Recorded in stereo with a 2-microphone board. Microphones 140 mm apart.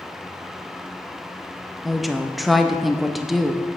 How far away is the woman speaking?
About 0.6 m.